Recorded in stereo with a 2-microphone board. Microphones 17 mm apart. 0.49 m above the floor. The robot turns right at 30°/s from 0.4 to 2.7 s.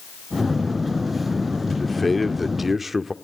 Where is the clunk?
No clunk in this recording.